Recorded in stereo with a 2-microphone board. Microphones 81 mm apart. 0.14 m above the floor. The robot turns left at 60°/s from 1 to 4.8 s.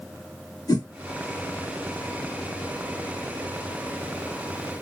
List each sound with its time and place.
0.7 s a whoosh: 55° left (ahead or behind), 2 m